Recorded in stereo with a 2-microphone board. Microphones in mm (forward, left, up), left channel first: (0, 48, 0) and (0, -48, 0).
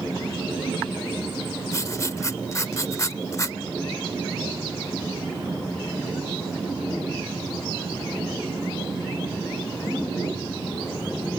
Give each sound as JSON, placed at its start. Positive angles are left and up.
{"t": 1.7, "sound": "writing", "side_deg": 30}